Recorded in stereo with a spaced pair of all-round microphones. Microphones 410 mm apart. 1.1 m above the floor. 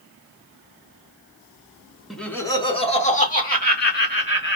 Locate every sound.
2.1 s laughter: centre (ahead or behind), 1.1 m; by 4.6 s 25° left (ahead or behind), 2.5 m